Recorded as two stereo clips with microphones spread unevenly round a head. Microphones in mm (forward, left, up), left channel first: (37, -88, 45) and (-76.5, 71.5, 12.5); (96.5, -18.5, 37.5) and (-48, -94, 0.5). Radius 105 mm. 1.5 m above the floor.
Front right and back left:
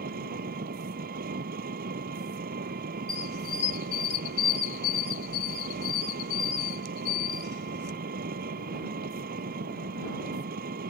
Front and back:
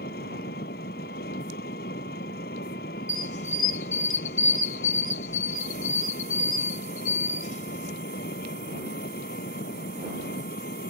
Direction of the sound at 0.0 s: 75° left.